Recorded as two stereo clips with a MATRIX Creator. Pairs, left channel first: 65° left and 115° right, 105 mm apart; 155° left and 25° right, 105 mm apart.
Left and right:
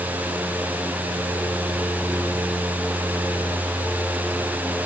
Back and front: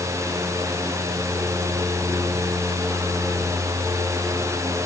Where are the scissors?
No scissors in this recording.